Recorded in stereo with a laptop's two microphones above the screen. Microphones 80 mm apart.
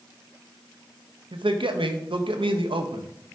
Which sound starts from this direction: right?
A man speaking, at 1.3 s.